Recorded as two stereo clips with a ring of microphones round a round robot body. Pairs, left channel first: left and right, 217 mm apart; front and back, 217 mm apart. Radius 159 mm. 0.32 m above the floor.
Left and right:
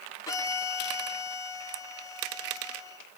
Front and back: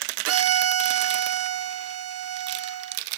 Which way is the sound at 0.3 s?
170° left.